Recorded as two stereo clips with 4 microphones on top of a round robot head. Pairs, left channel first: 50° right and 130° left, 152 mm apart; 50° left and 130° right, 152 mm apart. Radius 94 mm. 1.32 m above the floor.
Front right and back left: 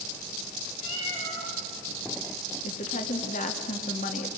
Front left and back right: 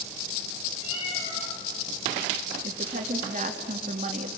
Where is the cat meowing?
Straight ahead, 9.5 m.